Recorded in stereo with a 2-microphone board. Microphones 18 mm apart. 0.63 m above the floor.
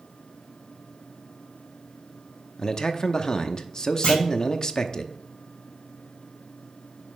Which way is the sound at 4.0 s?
65° left (ahead or behind).